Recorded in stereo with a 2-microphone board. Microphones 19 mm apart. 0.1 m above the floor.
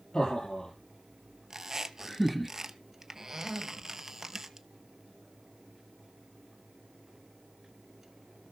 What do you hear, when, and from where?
0.1 s laughter: 50° left (ahead or behind), 2.5 m; by 2.5 s centre (ahead or behind), 1.5 m
1.5 s a squeak: 25° right (ahead or behind), 0.9 m